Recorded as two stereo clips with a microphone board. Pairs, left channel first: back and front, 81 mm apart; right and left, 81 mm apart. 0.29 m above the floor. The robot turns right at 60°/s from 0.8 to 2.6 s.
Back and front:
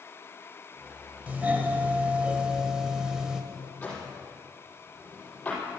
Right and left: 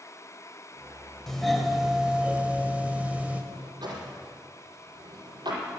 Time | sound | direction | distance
1.3 | a doorbell | 15° right | 1.4 m
3.5 | a drawer | 110° left | 5 m